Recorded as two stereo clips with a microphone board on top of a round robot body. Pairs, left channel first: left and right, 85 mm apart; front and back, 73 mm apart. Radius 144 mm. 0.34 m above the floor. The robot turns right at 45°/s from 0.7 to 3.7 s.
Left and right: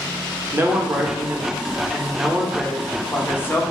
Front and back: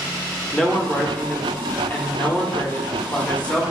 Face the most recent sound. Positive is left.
turn(degrees=65)